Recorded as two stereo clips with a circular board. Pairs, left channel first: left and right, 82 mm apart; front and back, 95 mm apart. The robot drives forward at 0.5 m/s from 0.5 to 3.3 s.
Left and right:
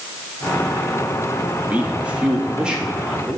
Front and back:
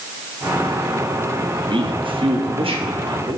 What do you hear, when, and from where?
1.7 s a man speaking: 160° right, 0.7 m; by 3.4 s 170° right, 1.4 m